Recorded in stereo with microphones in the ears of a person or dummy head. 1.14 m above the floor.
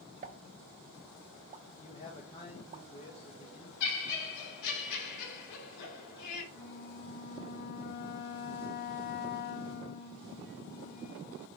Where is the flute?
50° left (ahead or behind), 1.0 m.